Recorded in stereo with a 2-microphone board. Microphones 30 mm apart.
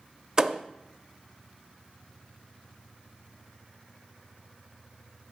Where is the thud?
25° right (ahead or behind), 0.5 m.